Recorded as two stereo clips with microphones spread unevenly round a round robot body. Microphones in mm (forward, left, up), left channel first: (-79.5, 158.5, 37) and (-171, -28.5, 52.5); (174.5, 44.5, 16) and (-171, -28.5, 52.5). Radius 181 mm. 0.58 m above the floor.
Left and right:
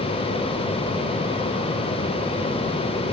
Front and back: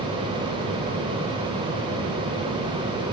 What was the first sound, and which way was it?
Only background noise.